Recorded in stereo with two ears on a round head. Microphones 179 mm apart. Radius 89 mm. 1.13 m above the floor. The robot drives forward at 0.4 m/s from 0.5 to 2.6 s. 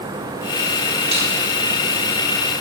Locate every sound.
1.1 s cutlery clinking: 30° right (ahead or behind), 3.5 m